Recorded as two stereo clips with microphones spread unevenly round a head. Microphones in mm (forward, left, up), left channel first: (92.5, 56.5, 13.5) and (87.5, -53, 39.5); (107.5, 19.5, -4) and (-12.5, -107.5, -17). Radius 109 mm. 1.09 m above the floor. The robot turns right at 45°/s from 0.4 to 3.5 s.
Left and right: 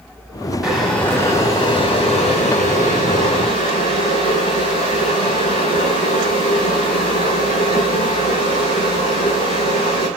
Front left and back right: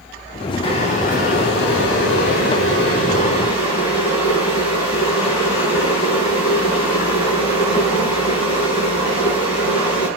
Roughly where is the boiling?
Ahead.